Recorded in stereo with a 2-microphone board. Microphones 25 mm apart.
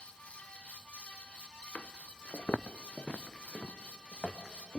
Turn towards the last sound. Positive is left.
turn(degrees=40)  # may be behind; listen again after turning